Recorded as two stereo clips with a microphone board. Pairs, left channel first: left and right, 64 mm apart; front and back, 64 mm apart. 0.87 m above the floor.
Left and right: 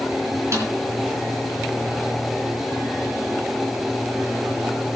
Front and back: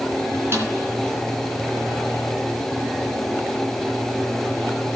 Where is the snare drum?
130° right, 3.5 m.